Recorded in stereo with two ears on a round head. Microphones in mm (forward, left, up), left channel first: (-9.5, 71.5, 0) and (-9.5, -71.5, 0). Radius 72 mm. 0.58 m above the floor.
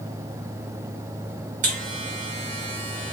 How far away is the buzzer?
About 1.1 m.